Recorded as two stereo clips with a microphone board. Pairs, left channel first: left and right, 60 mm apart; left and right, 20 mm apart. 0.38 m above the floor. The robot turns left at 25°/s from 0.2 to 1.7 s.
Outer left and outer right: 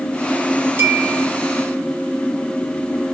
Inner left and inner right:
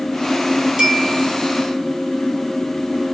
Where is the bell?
35° right (ahead or behind), 4.5 m; by 1.3 s 45° right (ahead or behind), 4.5 m.